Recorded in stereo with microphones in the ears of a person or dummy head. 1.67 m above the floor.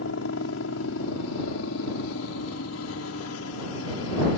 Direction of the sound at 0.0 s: 75° left (ahead or behind).